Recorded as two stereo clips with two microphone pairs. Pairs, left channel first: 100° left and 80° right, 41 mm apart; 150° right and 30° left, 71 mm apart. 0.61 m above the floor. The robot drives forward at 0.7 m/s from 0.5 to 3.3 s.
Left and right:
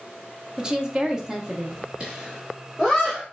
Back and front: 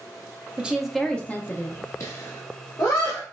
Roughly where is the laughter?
Behind right.